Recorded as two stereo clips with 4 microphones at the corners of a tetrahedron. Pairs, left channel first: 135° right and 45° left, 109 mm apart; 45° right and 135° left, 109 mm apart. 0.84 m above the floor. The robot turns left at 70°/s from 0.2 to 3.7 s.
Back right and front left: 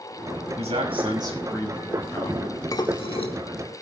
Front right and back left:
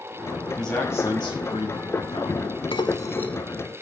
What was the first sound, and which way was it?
A man speaking, 45° left.